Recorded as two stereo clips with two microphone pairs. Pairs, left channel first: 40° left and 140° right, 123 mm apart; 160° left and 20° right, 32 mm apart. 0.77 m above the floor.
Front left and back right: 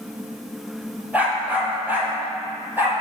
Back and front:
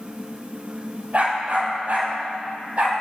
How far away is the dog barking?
About 4.5 m.